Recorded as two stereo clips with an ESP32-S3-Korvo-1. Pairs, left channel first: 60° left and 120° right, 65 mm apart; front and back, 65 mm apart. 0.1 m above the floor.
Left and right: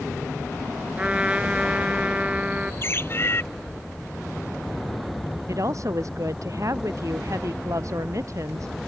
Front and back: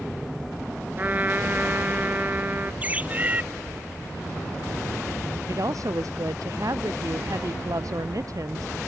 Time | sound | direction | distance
1.0 | a trumpet | 170° right | ?
2.8 | a bird | 115° left | ?
5.5 | a woman speaking | 155° right | ?